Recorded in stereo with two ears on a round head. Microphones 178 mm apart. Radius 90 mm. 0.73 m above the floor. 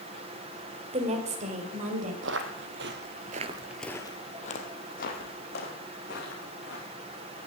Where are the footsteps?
65° right (ahead or behind), 1.9 m; by 6.8 s 50° left (ahead or behind), 4.5 m.